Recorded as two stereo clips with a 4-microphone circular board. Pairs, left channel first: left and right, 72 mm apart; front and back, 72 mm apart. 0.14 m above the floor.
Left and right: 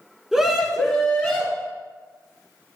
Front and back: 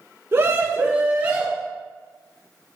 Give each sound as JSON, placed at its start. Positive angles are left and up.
{"t": 0.3, "sound": "a scream", "azimuth_deg": -170, "distance_m": 1.4}